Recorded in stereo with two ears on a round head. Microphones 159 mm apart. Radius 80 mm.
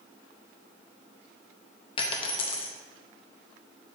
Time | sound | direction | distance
2.0 | a dropped coin | 30° left (ahead or behind) | 0.8 m